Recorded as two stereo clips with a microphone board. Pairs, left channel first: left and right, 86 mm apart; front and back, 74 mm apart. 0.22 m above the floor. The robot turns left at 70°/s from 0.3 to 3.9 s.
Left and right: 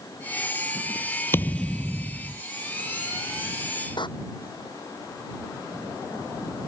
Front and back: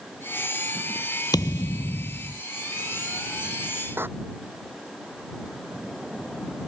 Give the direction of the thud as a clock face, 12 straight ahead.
11 o'clock.